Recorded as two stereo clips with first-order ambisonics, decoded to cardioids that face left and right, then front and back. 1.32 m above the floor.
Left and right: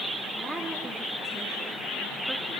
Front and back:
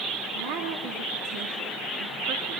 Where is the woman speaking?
Straight behind, 3.5 m.